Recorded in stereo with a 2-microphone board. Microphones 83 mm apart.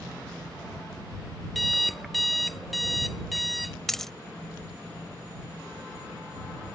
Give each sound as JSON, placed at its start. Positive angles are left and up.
{"t": 1.6, "sound": "an alarm clock", "side_deg": 0}
{"t": 3.9, "sound": "a dropped coin", "side_deg": 5}